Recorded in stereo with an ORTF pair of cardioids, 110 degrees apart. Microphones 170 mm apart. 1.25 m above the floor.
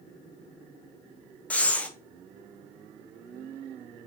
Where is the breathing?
10° left, 0.7 m.